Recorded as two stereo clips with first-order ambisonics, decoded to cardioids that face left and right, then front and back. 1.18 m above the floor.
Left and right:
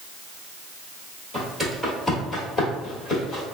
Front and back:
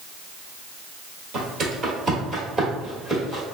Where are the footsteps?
165° right, 1.3 m; by 3.4 s 90° left, 1.4 m.